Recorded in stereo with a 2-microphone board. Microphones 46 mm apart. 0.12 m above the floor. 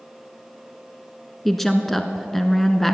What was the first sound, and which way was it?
A woman speaking, 5° left (ahead or behind).